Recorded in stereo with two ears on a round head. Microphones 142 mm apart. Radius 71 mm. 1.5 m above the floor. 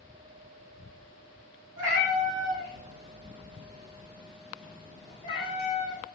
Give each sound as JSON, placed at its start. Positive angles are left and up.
{"t": 1.8, "sound": "a cat meowing", "side_deg": -55, "distance_m": 1.6}